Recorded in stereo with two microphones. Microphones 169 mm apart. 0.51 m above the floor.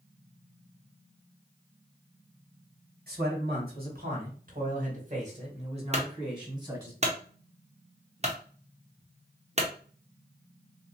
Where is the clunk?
40° right (ahead or behind), 0.9 m.